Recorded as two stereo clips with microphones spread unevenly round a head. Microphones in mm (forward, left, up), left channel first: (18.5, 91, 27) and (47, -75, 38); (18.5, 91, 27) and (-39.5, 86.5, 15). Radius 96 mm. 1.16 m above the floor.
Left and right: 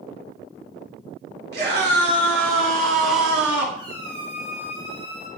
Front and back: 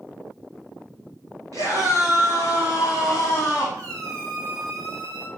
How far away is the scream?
About 3 m.